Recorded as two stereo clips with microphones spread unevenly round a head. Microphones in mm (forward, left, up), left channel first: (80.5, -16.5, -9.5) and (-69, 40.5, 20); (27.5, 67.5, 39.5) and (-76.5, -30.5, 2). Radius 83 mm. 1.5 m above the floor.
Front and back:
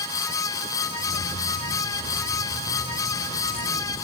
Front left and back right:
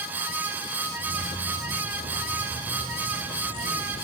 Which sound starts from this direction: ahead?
Keys jangling, at 1.0 s.